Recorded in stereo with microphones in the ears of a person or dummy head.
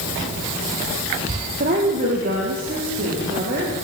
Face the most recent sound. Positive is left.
turn(degrees=-35)  # may be behind; listen again after turning